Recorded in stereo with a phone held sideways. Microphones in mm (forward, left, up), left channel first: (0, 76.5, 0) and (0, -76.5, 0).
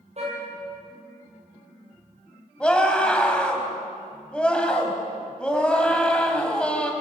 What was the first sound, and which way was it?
A car horn, 50° right (ahead or behind).